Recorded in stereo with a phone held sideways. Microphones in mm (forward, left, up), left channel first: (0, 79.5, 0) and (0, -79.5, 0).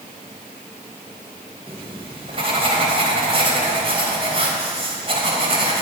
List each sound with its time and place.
1.7 s writing: 40° right (ahead or behind), 3 m